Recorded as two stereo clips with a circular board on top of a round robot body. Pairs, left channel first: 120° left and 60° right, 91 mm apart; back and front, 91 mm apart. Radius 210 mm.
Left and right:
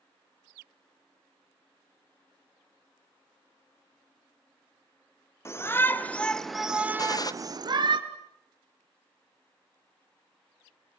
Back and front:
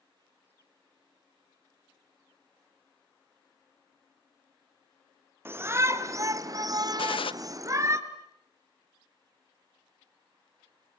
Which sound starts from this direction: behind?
A gunshot, at 7.0 s.